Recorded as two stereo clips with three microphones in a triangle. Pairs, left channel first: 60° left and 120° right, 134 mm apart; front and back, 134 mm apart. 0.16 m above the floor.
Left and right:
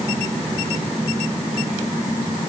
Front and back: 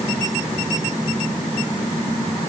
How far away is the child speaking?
I don't hear a child speaking.